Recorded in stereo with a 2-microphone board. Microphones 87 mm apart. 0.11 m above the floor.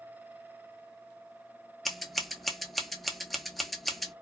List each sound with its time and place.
1.9 s scissors: centre (ahead or behind), 0.7 m